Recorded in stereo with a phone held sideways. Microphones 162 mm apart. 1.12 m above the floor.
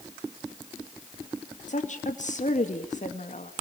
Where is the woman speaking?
50° left (ahead or behind), 2 m.